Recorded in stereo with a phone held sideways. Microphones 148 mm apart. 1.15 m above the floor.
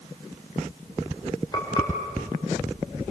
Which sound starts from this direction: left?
Frying, at 1.5 s.